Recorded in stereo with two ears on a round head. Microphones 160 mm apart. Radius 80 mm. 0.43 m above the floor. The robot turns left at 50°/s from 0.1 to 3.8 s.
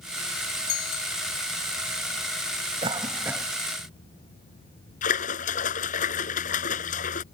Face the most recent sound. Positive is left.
turn(degrees=45)  # may be behind; listen again after turning